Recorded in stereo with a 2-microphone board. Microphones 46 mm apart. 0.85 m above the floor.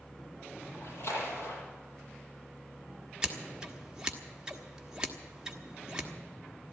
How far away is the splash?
About 7 m.